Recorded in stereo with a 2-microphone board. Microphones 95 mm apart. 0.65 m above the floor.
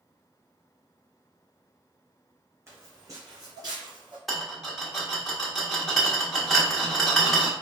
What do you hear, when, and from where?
2.7 s footsteps: 30° right (ahead or behind), 2.0 m; by 4.2 s 55° right (ahead or behind), 1.7 m
4.3 s a rattle: centre (ahead or behind), 1.0 m